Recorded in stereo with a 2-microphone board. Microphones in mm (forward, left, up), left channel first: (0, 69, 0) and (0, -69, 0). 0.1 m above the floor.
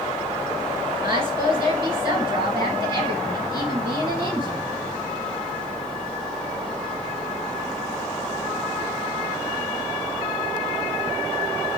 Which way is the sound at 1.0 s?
20° right (ahead or behind).